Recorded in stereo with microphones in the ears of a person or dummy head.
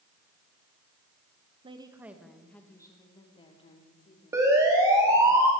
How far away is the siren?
About 3 m.